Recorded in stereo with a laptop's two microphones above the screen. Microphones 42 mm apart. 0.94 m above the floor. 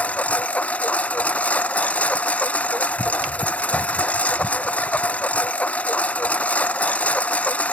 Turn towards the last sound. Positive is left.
turn(degrees=35)  # may be behind; listen again after turning